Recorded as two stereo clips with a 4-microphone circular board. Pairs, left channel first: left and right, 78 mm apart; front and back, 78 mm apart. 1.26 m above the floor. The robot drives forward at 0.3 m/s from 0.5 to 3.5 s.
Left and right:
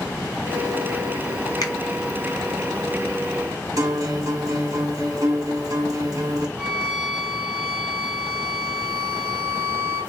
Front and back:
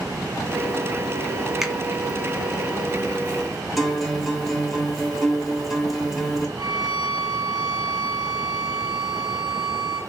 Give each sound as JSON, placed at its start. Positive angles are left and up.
{"t": 1.6, "sound": "a finger snap", "azimuth_deg": 95, "distance_m": 0.5}
{"t": 3.8, "sound": "a guitar", "azimuth_deg": -95, "distance_m": 0.8}
{"t": 6.6, "sound": "a violin", "azimuth_deg": -160, "distance_m": 1.5}